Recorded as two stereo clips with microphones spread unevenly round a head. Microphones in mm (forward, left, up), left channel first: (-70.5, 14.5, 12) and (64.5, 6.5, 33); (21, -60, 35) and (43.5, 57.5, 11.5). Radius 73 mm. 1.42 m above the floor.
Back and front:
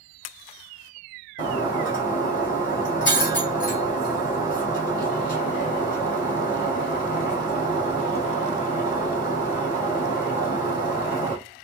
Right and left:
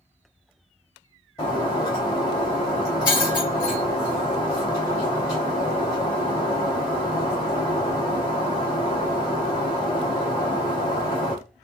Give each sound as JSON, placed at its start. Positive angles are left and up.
{"t": 1.4, "sound": "breaking glass", "azimuth_deg": -150, "distance_m": 2.0}